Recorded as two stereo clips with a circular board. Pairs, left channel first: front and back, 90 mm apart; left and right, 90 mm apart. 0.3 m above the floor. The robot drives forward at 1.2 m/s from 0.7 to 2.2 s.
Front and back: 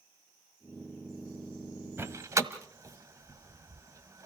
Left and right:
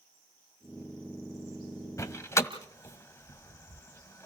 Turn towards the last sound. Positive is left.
turn(degrees=140)